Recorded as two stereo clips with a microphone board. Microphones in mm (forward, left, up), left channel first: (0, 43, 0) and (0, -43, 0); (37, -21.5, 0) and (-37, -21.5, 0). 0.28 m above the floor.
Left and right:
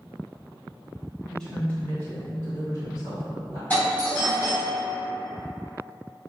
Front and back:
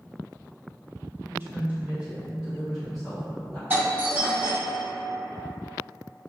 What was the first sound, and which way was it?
A woman speaking, 170° left.